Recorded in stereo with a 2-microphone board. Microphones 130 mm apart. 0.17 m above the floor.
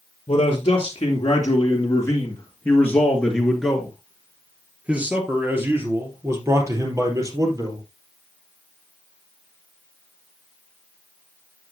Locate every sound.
0.3 s a man speaking: 50° left (ahead or behind), 2.5 m; by 7.8 s 30° right (ahead or behind), 4 m